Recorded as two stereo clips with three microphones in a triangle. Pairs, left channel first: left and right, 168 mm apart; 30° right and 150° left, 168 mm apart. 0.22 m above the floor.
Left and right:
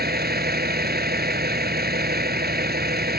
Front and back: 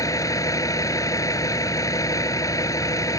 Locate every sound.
0.0 s a vehicle: 100° right